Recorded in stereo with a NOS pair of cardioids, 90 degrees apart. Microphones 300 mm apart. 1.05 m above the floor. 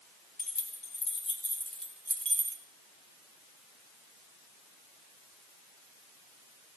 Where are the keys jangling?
30° left, 2.5 m; by 2.6 s 40° right, 0.9 m.